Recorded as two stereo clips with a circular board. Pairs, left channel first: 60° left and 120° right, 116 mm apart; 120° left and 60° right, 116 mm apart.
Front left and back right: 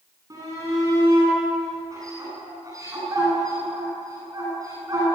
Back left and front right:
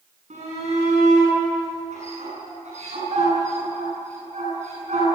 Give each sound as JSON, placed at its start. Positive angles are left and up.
{"t": 0.3, "sound": "a shout", "azimuth_deg": -60, "distance_m": 9.5}